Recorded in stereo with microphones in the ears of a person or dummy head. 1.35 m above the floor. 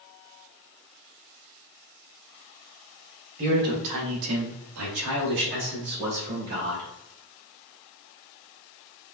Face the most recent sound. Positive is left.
turn(degrees=-45)  # may be behind; listen again after turning